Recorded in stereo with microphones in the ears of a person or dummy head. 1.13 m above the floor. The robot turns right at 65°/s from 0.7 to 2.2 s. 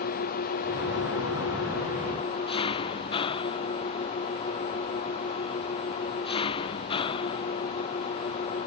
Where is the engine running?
65° left; by 8.7 s 160° left.